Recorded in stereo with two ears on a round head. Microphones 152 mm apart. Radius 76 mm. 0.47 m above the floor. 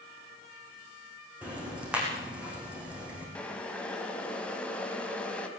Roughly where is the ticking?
Centre.